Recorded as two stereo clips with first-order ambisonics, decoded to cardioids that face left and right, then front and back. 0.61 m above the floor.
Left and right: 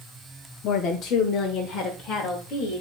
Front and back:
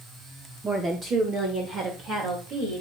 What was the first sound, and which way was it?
A woman speaking, 115° left.